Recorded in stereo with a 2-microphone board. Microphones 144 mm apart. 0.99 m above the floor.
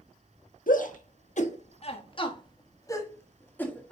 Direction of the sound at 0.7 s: 70° left (ahead or behind).